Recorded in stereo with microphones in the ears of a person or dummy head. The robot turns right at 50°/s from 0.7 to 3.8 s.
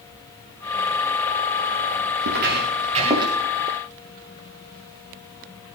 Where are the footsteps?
70° right (ahead or behind), 6 m; by 3.3 s 20° right (ahead or behind), 6.5 m.